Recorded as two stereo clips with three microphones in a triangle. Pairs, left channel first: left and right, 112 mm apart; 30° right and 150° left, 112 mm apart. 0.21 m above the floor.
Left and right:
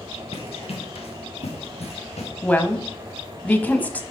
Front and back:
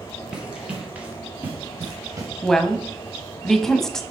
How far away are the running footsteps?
About 2.5 m.